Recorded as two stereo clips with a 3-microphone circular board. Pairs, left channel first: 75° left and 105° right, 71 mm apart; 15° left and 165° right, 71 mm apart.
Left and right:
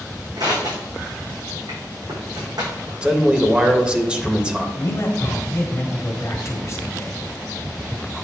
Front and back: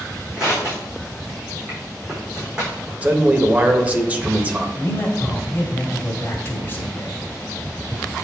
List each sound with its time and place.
0.4 s crushing: 85° right, 4 m
3.0 s a man speaking: 155° right, 0.8 m
4.8 s a man speaking: 60° left, 1.6 m